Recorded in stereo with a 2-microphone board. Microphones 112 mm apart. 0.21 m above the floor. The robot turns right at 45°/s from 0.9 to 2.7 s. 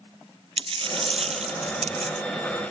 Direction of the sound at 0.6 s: 125° right.